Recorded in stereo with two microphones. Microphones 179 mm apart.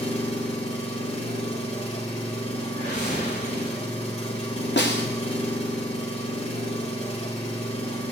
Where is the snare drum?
80° left, 1.4 m.